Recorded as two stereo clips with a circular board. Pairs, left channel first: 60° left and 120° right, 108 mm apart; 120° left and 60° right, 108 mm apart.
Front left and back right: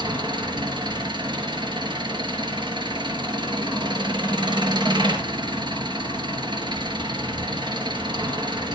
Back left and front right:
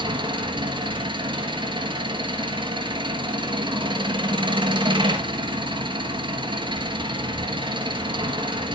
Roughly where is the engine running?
Right.